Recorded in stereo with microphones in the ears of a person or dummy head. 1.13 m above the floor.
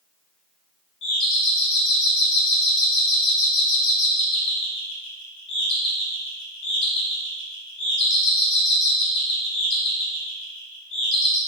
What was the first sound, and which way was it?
A doorbell, 60° left (ahead or behind).